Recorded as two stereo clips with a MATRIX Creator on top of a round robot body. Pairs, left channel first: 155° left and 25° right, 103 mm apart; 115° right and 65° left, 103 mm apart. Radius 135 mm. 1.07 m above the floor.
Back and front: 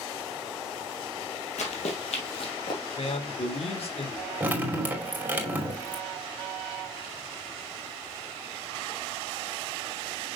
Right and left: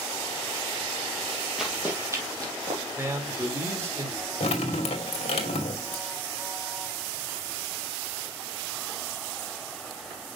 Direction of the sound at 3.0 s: 135° left.